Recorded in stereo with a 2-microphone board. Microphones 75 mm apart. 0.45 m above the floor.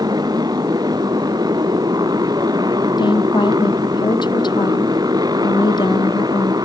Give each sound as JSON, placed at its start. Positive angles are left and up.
{"t": 0.0, "sound": "a motorcycle", "side_deg": -60}
{"t": 3.0, "sound": "a woman speaking", "side_deg": 80}